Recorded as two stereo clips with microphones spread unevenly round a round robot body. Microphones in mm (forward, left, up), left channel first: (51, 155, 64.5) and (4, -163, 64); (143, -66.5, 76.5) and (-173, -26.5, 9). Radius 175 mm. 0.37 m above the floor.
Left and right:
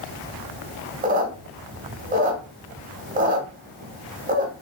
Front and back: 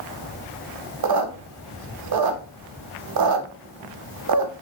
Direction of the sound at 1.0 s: 165° right.